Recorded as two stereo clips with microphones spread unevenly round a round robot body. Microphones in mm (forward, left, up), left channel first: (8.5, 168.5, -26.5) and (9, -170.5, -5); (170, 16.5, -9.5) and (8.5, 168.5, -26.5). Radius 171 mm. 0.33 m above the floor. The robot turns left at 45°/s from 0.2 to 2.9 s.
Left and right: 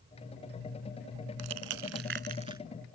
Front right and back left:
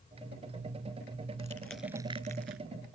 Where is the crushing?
115° right; by 2.6 s 170° right.